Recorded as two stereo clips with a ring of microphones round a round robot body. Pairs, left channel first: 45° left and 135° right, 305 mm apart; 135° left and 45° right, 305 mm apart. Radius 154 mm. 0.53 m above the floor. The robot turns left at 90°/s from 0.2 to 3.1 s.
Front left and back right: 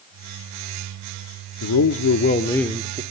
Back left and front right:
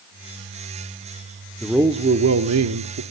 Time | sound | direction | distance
1.6 | a man speaking | 50° left | 1.1 m